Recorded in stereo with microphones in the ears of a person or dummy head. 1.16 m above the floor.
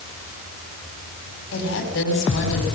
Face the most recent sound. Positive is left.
turn(degrees=80)